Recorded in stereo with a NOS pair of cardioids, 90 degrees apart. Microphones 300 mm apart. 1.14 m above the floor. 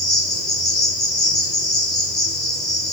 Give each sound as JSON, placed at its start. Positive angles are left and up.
{"t": 0.0, "sound": "an insect", "azimuth_deg": 0, "distance_m": 0.8}